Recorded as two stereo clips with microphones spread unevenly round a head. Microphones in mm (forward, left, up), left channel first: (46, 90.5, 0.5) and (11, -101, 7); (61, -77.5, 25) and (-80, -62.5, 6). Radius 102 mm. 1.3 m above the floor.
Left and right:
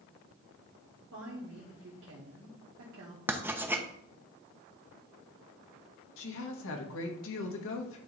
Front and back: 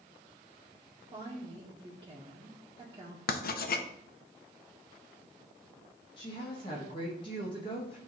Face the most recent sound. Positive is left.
turn(degrees=60)